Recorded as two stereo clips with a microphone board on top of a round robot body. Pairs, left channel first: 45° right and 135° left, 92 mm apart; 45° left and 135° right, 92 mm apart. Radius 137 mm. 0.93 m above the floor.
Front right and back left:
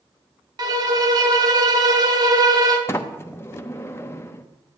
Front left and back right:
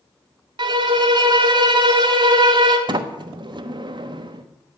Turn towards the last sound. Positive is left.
turn(degrees=-105)